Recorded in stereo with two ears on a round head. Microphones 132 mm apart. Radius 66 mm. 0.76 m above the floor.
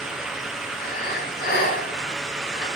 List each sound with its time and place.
0.8 s breathing: 70° left (ahead or behind), 5.5 m